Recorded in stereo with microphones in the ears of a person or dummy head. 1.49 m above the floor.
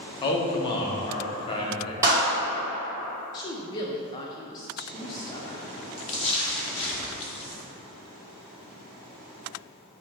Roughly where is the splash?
Left.